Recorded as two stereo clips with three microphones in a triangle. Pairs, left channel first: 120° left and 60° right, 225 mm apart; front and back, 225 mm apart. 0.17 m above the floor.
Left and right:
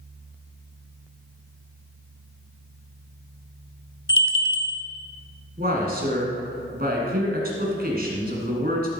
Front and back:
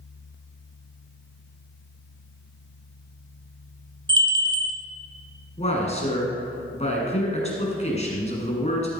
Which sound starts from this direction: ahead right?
A man speaking, at 5.6 s.